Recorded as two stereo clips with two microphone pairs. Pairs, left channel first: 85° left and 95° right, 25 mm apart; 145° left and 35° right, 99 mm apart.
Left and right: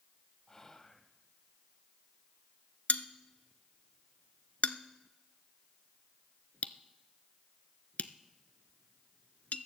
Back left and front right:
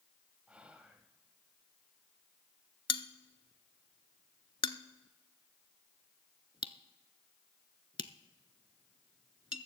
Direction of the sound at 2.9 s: 110° left.